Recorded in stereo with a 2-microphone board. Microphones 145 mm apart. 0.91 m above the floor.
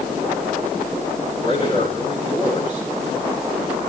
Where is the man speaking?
40° left (ahead or behind), 9.5 m.